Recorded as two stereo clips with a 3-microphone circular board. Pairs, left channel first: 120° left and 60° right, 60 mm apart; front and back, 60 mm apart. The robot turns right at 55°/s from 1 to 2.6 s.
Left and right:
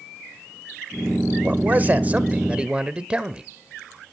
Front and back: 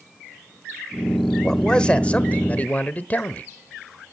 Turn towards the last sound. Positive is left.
turn(degrees=-10)